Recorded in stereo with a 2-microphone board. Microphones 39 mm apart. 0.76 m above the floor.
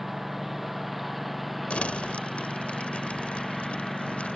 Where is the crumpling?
35° left (ahead or behind).